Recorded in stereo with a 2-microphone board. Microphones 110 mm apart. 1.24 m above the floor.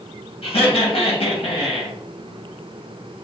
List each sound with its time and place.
0.4 s laughter: 60° left (ahead or behind), 1.0 m